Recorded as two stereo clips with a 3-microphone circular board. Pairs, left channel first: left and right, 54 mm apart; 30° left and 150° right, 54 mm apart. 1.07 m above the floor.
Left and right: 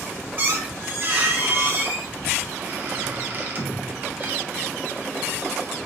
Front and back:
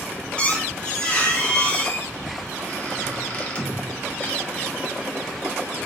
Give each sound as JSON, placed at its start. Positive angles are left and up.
{"t": 0.4, "sound": "a squeak", "azimuth_deg": -35, "distance_m": 0.9}